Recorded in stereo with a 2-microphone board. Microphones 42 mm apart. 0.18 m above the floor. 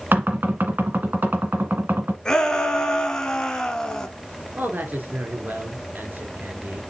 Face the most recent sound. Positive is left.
turn(degrees=-45)  # may be behind; listen again after turning